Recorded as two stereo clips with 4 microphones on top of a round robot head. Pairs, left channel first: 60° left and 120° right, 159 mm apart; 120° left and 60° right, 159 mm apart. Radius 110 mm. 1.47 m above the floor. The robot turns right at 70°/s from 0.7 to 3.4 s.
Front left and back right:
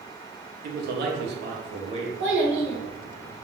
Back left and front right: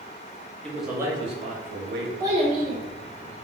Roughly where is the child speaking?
Behind right.